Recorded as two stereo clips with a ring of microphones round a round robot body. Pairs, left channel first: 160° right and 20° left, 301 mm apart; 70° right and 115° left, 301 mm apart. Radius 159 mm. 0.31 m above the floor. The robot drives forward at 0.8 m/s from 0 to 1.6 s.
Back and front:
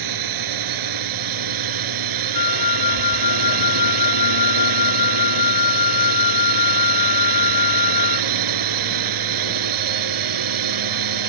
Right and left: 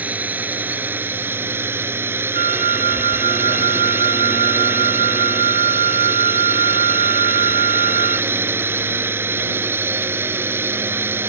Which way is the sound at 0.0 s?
25° left.